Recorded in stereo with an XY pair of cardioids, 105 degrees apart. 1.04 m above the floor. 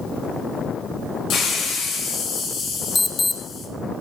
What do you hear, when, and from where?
1.3 s a hiss: 65° left, 4.5 m
3.0 s an alarm: 25° left, 0.9 m